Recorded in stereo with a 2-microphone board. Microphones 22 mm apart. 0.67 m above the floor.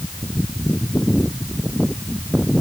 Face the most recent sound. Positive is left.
No sound to turn to.